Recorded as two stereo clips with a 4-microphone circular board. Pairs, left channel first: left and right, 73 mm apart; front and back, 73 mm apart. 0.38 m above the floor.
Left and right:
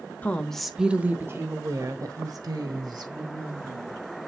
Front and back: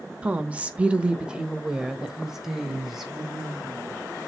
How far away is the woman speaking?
About 0.9 m.